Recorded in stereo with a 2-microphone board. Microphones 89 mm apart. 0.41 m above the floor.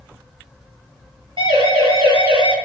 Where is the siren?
70° right (ahead or behind), 8.5 m; by 2.5 s 65° right (ahead or behind), 7 m.